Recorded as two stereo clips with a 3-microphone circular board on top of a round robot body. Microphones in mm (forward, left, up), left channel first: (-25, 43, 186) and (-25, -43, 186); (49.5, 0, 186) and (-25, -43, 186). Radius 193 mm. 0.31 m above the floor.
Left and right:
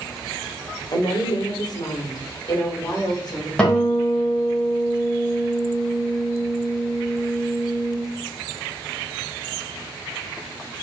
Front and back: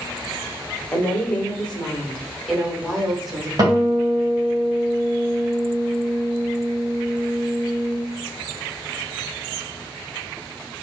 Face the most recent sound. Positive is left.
turn(degrees=170)